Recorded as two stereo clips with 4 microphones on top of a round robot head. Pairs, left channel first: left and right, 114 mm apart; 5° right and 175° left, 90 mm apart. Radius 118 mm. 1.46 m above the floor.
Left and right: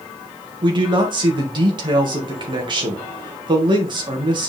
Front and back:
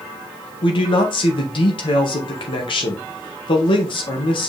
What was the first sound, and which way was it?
A man speaking, 35° right.